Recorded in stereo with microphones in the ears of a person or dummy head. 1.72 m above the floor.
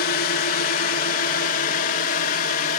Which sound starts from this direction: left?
A drone, at 0.0 s.